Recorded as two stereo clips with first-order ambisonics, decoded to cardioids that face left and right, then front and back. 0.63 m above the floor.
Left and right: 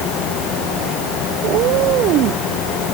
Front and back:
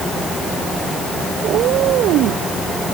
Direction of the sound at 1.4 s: 130° right.